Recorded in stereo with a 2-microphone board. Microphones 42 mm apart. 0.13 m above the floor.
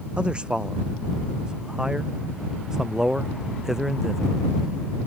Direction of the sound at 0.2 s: 20° right (ahead or behind).